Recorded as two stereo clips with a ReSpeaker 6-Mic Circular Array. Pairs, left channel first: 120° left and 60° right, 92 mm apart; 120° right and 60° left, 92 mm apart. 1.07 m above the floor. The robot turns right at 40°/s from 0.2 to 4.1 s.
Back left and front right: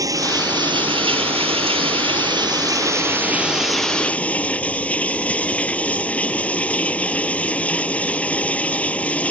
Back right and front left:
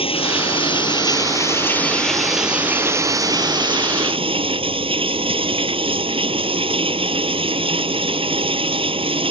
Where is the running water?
110° right; by 9.3 s 45° left.